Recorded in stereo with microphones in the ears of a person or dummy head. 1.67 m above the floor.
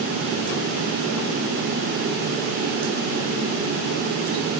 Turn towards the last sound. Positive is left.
No sound to turn to.